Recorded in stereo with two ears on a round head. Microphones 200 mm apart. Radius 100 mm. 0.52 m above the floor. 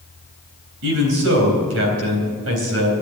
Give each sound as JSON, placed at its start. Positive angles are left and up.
{"t": 0.8, "sound": "a man speaking", "side_deg": -65, "distance_m": 3.5}